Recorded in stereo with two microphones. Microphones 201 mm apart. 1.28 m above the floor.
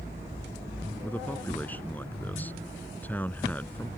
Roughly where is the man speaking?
Centre.